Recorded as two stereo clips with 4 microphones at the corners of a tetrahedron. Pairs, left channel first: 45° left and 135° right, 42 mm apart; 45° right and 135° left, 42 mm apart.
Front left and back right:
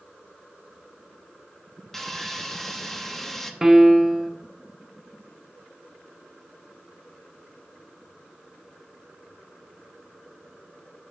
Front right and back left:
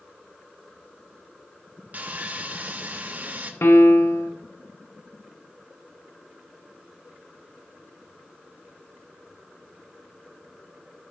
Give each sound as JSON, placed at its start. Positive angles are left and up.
{"t": 1.9, "sound": "sawing", "azimuth_deg": 125, "distance_m": 0.7}
{"t": 3.6, "sound": "a piano", "azimuth_deg": -55, "distance_m": 0.6}